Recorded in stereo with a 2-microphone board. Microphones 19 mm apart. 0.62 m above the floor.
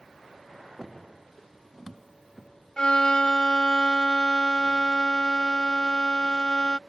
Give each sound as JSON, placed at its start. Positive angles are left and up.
{"t": 2.8, "sound": "a violin", "side_deg": 50}